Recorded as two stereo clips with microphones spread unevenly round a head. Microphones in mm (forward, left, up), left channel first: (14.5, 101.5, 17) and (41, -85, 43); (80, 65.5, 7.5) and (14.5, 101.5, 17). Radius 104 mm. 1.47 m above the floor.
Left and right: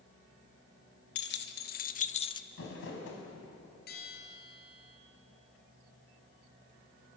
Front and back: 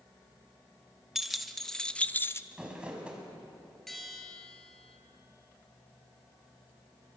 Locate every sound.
1.1 s keys jangling: 65° left, 1.8 m; by 2.4 s 25° left, 0.8 m
2.5 s crumpling: 80° left, 5.5 m
3.9 s a bell: 60° left, 5.5 m